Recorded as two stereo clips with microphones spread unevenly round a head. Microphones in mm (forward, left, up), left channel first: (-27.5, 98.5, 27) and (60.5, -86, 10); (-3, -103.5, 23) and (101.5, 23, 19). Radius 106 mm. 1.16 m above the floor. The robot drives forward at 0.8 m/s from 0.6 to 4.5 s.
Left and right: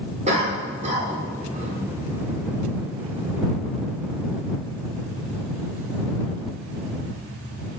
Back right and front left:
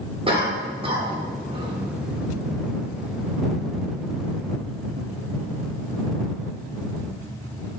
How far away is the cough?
About 3 m.